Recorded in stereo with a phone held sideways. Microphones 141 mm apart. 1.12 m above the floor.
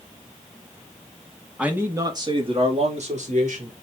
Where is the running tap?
No running tap in this recording.